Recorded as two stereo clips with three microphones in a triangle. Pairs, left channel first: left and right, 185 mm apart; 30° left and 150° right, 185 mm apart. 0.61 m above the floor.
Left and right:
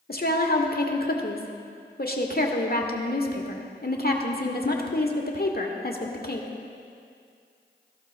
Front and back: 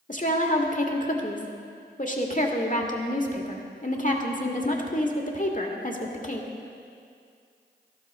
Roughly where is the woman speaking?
Ahead left.